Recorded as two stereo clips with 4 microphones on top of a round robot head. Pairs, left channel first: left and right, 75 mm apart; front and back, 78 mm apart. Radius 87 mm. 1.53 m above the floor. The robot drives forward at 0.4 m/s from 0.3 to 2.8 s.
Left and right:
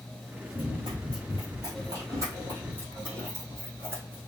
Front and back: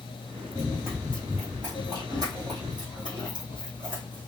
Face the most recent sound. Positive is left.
turn(degrees=-145)